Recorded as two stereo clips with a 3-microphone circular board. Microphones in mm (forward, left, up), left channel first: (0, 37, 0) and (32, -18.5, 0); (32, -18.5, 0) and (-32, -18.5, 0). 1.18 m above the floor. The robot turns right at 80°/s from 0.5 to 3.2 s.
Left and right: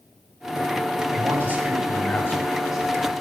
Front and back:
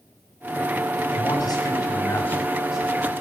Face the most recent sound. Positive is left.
turn(degrees=140)